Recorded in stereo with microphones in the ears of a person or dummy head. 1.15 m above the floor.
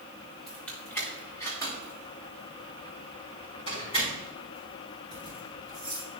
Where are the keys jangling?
10° left (ahead or behind), 1.8 m; by 6.1 s 35° left (ahead or behind), 7.5 m.